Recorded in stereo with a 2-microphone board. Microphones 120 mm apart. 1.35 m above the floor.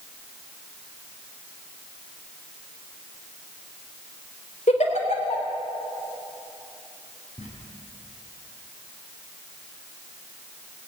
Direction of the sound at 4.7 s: 70° left (ahead or behind).